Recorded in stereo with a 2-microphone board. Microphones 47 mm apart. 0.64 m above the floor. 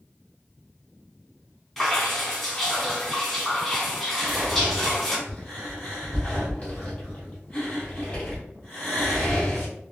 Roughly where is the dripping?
Centre.